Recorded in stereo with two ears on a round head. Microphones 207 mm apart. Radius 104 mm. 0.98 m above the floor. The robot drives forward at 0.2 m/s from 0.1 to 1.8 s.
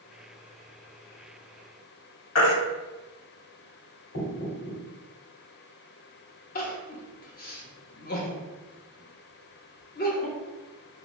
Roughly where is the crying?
Left.